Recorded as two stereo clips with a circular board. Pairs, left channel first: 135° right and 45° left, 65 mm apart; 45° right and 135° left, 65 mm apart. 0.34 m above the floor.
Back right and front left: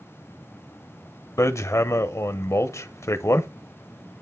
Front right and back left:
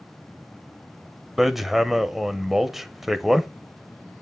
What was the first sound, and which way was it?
Hammering, 140° right.